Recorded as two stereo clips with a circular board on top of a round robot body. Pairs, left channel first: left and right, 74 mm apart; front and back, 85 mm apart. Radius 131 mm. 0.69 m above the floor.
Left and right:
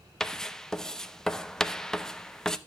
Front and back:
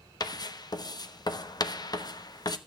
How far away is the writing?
About 1.2 m.